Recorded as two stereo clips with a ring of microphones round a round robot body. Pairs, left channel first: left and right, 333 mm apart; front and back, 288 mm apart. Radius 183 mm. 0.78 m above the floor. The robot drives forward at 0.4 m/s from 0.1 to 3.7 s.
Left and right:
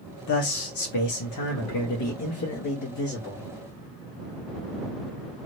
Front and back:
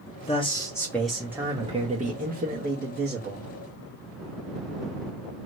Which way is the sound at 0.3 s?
65° left.